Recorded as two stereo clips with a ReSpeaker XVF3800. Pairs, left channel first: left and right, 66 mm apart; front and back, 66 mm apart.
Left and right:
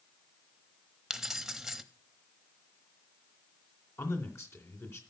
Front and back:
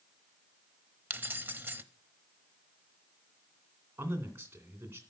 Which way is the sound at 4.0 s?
130° left.